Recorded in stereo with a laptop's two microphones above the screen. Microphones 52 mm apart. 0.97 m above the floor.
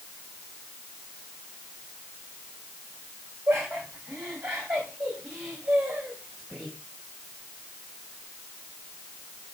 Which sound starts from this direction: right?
Laughter, at 3.5 s.